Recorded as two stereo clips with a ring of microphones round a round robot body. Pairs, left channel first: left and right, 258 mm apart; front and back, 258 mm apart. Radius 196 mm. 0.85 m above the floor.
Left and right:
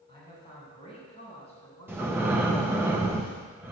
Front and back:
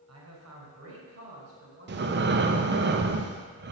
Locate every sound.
0.1 s a man speaking: 165° left, 4 m; by 2.3 s 145° left, 3.5 m
1.9 s breathing: 170° right, 0.7 m